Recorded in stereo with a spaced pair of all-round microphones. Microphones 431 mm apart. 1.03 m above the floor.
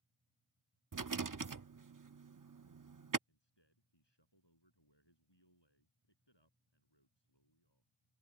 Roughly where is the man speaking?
Left.